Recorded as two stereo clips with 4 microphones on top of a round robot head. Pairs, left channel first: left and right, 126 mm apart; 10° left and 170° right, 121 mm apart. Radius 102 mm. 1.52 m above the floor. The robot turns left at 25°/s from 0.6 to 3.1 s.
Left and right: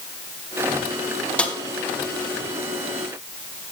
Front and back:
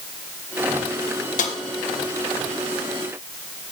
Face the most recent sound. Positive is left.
turn(degrees=-30)